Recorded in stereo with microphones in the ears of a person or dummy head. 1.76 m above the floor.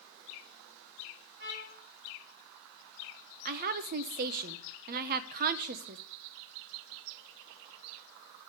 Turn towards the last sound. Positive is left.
turn(degrees=-45)  # may be behind; listen again after turning